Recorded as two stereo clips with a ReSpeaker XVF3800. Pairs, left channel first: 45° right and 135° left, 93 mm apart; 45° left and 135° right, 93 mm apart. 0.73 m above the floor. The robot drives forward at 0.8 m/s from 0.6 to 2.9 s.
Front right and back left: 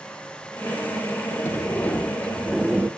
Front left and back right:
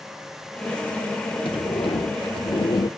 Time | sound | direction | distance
1.4 | a sliding door | 20° left | 1.4 m